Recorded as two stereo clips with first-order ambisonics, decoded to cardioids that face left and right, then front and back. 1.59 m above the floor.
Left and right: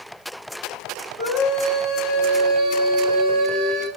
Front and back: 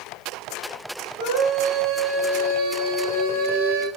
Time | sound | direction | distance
1.2 | a scream | 175° right | 7.5 m